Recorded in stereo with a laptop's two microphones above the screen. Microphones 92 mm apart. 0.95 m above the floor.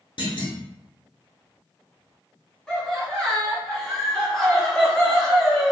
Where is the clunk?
60° left (ahead or behind), 1.0 m.